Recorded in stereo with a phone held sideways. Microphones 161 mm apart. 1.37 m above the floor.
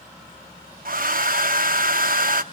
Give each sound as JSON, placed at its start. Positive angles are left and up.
{"t": 0.8, "sound": "a hair dryer", "side_deg": -60, "distance_m": 0.6}